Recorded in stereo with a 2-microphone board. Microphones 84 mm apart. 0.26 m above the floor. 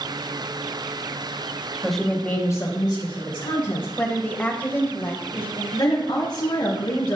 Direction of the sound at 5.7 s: 60° left (ahead or behind).